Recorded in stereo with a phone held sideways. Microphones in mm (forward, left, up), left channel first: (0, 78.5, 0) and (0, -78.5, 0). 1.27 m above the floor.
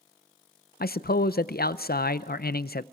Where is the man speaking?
80° left, 0.5 m.